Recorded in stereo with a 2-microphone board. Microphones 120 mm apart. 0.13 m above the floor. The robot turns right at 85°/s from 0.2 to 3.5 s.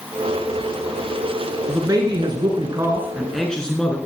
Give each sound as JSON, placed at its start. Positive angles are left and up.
{"t": 1.7, "sound": "a man speaking", "azimuth_deg": -145, "distance_m": 1.7}